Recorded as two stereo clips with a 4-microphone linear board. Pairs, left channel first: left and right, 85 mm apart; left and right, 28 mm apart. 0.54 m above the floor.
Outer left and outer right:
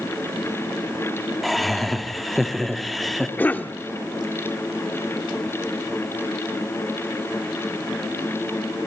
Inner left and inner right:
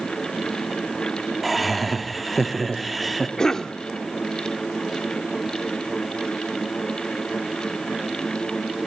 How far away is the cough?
About 0.9 m.